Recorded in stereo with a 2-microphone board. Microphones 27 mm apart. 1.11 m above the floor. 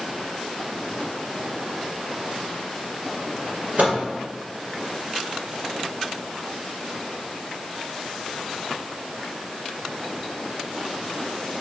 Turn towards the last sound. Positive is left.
turn(degrees=-70)  # may be behind; listen again after turning